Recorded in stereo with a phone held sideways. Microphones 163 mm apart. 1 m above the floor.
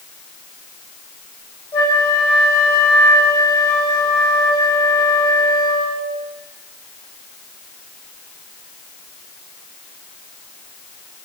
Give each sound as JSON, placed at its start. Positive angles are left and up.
{"t": 1.7, "sound": "a flute", "side_deg": 30, "distance_m": 1.7}